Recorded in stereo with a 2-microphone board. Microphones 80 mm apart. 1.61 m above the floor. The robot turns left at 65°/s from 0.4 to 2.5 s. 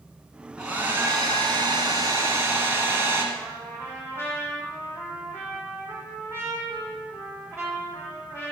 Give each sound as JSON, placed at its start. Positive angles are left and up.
{"t": 0.6, "sound": "a hair dryer", "azimuth_deg": -10, "distance_m": 2.5}
{"t": 3.3, "sound": "a trumpet", "side_deg": -30, "distance_m": 4.5}